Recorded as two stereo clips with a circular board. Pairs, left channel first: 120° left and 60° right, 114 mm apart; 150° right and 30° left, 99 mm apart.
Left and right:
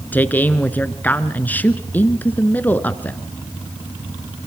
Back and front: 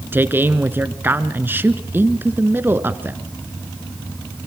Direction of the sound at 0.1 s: 65° left.